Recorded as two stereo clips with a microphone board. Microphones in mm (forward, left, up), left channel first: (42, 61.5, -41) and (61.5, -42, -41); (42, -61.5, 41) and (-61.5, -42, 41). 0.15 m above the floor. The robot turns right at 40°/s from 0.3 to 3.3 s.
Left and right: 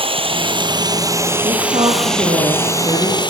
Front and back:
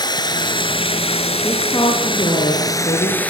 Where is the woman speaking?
80° right, 8 m; by 3.2 s 10° right, 8 m.